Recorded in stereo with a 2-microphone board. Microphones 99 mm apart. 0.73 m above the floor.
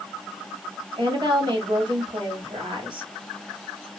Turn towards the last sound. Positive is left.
turn(degrees=-50)  # may be behind; listen again after turning